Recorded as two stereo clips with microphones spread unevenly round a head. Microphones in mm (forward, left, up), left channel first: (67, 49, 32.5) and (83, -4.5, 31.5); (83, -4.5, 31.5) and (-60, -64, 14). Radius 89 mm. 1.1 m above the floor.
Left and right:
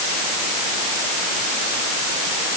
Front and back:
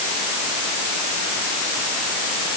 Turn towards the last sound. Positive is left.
No sound to turn to.